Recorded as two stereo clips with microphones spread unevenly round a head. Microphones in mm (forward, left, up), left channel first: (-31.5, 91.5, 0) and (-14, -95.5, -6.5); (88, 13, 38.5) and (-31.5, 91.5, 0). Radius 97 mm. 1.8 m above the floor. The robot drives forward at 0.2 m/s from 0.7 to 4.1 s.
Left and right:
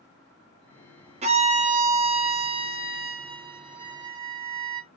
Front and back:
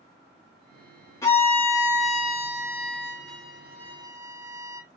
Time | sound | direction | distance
1.2 | a violin | 55° right | 0.6 m